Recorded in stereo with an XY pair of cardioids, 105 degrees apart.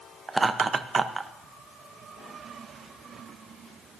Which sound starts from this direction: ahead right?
Laughter, at 0.3 s.